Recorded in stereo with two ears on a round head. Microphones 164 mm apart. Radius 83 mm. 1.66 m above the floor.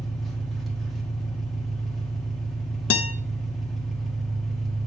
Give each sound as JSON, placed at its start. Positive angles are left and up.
{"t": 0.0, "sound": "an engine running", "side_deg": 0, "distance_m": 1.4}
{"t": 2.9, "sound": "a guitar", "side_deg": 70, "distance_m": 0.7}